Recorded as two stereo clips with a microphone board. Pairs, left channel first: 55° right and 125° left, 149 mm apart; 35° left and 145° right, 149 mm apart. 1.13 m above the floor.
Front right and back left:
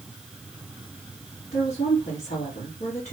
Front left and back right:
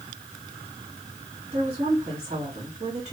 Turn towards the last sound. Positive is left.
turn(degrees=-85)